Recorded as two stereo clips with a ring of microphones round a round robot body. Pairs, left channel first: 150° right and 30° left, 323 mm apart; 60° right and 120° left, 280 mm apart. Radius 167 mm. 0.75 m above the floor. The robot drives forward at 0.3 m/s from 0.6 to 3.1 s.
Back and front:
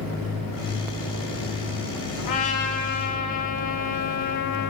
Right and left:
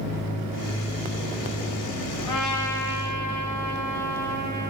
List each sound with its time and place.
2.2 s a trumpet: 135° right, 2.5 m; by 4.7 s 140° right, 2.5 m